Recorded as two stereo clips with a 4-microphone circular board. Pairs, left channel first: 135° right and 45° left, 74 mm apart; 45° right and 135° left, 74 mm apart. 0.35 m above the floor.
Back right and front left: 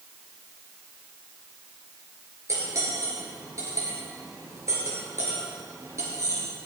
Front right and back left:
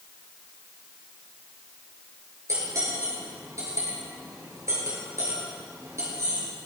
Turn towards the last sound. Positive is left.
turn(degrees=90)